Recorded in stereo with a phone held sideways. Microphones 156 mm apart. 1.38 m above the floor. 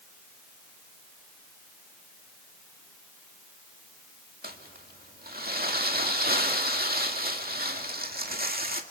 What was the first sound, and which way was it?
Crumpling, 80° right.